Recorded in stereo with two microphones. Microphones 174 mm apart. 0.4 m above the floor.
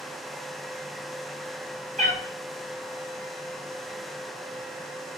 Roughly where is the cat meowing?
Right.